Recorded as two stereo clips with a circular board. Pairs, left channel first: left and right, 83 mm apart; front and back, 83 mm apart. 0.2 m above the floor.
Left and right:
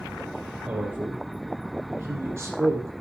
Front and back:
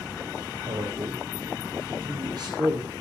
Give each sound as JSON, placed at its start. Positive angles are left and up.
{"t": 0.7, "sound": "a man speaking", "azimuth_deg": -160, "distance_m": 5.0}